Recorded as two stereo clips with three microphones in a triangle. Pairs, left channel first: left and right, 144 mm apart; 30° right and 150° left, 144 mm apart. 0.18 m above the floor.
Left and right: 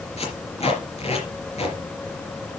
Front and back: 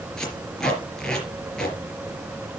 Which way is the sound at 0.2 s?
55° left.